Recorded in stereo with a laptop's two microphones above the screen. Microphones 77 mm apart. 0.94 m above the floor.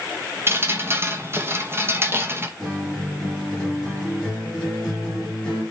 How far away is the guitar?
About 3.5 m.